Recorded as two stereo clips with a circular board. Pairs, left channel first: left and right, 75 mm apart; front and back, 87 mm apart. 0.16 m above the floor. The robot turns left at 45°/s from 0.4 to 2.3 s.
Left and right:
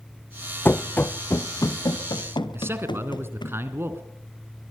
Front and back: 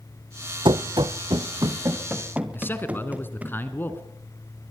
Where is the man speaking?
55° right, 2 m.